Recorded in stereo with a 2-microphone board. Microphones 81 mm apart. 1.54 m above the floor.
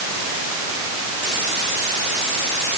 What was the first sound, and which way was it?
Only background noise.